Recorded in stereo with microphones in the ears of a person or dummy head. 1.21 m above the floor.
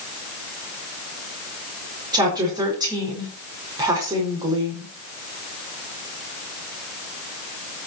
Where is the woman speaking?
25° right (ahead or behind), 4.5 m.